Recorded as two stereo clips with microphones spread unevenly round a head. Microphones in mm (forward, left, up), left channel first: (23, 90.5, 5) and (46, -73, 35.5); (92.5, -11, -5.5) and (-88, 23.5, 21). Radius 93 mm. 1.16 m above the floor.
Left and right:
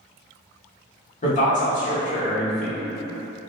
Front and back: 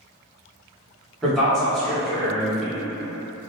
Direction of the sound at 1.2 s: 75° left.